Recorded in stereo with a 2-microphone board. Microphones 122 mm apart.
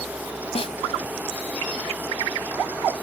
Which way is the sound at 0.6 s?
55° left (ahead or behind).